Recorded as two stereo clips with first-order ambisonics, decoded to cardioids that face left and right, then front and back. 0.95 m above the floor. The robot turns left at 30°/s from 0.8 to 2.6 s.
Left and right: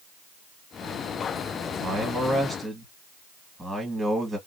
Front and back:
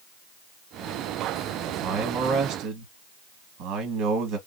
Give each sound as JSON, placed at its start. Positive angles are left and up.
{"t": 1.7, "sound": "a man speaking", "azimuth_deg": -150, "distance_m": 1.3}